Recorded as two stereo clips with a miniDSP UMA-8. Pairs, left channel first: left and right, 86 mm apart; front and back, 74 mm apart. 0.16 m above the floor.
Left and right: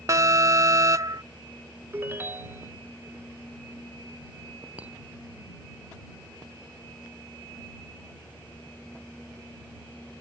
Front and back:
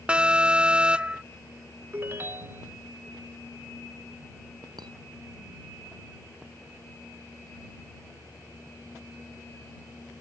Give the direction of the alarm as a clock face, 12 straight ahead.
4 o'clock.